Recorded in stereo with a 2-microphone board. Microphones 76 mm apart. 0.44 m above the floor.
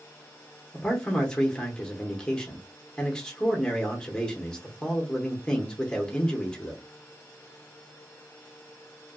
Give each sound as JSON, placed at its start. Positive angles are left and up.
{"t": 0.7, "sound": "a man speaking", "side_deg": 10, "distance_m": 0.9}